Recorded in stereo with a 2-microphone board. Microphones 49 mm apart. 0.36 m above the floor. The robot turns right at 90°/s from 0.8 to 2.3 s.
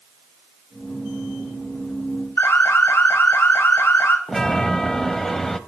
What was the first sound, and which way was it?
An alarm, 50° left (ahead or behind).